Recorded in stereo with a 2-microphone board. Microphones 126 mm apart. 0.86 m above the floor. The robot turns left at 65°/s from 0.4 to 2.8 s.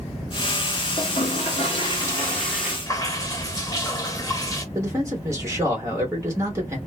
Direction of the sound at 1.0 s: 105° left.